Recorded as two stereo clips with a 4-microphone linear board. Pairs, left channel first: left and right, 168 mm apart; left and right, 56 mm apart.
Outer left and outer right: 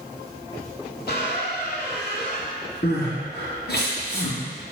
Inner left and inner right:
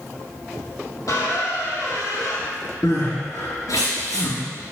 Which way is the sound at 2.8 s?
80° left.